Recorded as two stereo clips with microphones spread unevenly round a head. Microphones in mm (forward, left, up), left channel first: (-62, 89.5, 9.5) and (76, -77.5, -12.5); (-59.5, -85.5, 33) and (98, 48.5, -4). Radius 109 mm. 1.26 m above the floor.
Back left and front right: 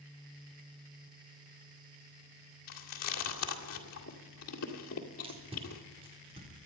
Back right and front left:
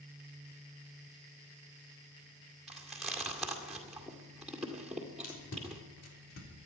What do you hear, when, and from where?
2.7 s chewing: 135° left, 2 m
5.2 s tape being pulled: 115° right, 4 m